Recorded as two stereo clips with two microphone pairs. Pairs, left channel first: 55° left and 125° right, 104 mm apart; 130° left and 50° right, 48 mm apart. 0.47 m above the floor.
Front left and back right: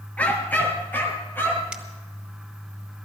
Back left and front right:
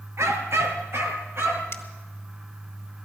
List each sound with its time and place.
0.2 s a dog barking: 20° right, 1.9 m; by 1.6 s 15° right, 3.5 m
1.7 s a finger snap: 155° left, 1.9 m